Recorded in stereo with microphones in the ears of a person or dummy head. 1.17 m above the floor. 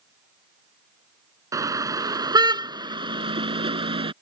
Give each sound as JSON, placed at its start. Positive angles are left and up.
{"t": 1.5, "sound": "a car horn", "side_deg": -15}